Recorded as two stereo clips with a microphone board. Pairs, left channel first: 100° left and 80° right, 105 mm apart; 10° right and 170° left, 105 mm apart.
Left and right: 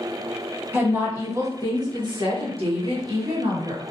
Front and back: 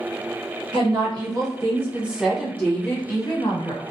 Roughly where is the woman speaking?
Behind right.